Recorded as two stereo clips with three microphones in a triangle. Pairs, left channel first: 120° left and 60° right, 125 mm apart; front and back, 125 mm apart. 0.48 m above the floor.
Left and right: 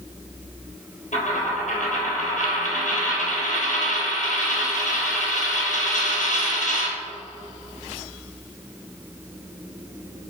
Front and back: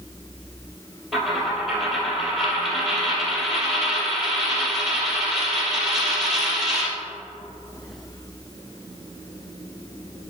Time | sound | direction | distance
1.1 | a dropped coin | 95° left | 2.5 m